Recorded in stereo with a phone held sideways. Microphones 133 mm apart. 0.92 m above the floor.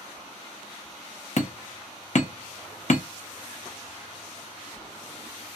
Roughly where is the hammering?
Left.